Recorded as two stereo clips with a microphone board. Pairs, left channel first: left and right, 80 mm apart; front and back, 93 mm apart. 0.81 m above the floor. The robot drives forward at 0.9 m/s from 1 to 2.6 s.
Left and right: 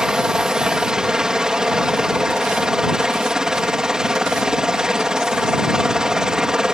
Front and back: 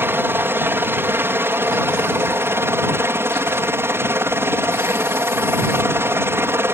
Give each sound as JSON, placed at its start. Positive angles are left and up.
{"t": 0.0, "sound": "a helicopter", "azimuth_deg": -160}